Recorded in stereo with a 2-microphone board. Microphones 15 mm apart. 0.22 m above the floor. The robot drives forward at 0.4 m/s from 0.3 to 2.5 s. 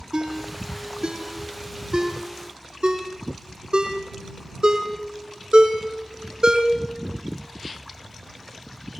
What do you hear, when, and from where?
0.1 s a ringtone: 85° right, 3.5 m; by 6.7 s 70° right (ahead or behind), 4 m